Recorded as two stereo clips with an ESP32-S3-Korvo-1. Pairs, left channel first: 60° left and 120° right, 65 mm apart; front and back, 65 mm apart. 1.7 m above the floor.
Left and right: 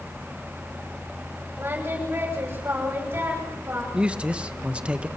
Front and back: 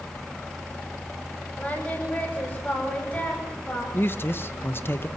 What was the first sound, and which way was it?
Singing, 65° right.